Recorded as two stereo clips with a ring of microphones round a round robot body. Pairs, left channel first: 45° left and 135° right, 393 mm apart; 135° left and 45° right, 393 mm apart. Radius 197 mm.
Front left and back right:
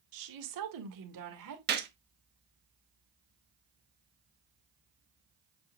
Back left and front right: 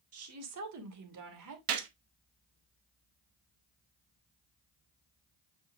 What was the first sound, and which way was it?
A woman speaking, 100° right.